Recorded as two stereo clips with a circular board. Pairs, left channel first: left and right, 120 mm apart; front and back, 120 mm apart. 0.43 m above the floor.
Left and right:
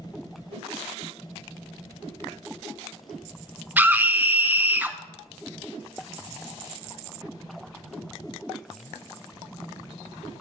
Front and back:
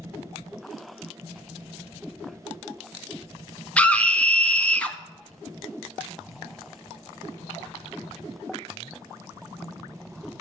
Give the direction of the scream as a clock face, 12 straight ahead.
2 o'clock.